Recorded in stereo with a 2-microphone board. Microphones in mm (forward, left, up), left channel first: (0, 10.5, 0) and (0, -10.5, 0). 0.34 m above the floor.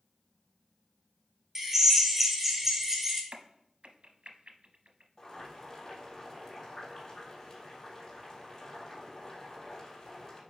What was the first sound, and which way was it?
A drill, 15° right (ahead or behind).